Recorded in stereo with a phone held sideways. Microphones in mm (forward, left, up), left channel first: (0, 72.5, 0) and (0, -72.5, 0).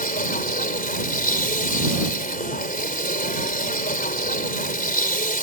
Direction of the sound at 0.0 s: 75° left (ahead or behind).